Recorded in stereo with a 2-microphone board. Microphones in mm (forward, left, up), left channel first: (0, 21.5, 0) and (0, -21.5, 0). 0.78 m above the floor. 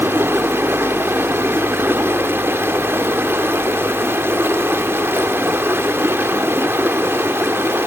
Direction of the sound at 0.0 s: 60° right (ahead or behind).